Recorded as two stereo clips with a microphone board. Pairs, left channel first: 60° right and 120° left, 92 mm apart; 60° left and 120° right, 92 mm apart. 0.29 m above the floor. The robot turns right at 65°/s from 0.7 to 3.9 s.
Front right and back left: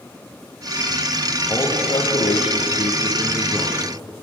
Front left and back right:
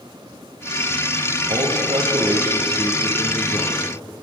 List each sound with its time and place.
1.5 s a man speaking: 125° right, 8 m; by 3.8 s 25° left, 8 m